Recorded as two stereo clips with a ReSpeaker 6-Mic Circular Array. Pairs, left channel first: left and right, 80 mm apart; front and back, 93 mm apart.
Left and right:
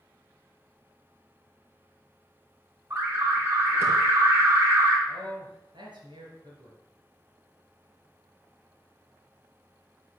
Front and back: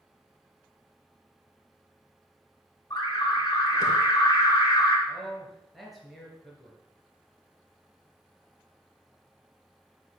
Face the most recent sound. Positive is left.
turn(degrees=-90)